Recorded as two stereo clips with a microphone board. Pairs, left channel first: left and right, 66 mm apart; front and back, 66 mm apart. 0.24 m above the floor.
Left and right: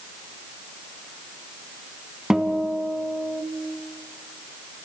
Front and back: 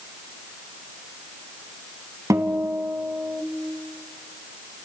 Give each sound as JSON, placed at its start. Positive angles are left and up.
{"t": 2.3, "sound": "a guitar", "azimuth_deg": -170, "distance_m": 1.9}